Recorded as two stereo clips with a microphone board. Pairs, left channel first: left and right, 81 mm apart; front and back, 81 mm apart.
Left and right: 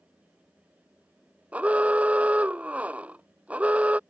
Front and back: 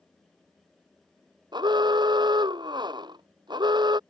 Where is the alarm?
165° right.